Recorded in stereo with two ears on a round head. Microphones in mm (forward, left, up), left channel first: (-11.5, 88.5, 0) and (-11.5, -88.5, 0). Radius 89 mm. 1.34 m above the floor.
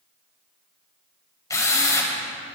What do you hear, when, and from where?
1.5 s a drill: 15° left (ahead or behind), 3 m